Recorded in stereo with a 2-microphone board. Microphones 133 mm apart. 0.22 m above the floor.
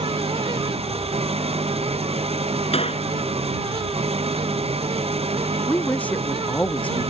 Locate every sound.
0.0 s an engine running: 50° right (ahead or behind)
2.7 s a gunshot: 50° left (ahead or behind)
5.7 s a woman speaking: 10° left (ahead or behind)